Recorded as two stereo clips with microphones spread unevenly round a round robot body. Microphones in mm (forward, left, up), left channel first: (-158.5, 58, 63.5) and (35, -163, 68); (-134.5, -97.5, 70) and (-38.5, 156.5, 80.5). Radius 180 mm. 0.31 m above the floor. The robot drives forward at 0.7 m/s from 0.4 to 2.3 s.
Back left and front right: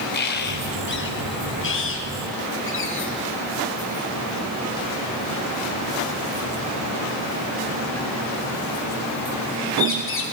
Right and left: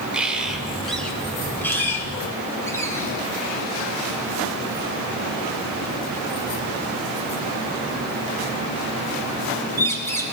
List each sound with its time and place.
0.1 s a bird: 155° left, 1.6 m; by 10.2 s 170° left, 2.5 m